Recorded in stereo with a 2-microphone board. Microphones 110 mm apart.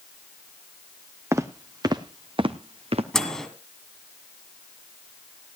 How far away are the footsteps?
About 1.4 m.